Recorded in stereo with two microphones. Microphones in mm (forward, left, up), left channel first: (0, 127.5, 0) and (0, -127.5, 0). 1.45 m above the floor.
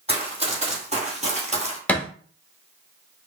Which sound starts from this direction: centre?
A thud, at 1.9 s.